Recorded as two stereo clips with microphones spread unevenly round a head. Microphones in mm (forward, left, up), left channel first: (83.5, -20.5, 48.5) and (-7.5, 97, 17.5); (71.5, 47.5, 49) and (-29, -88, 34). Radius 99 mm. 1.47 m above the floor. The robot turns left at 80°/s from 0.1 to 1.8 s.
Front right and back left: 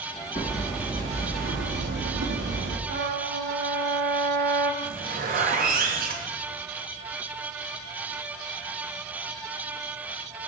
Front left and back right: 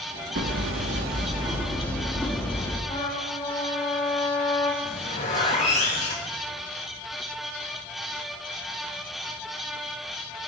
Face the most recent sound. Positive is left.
turn(degrees=110)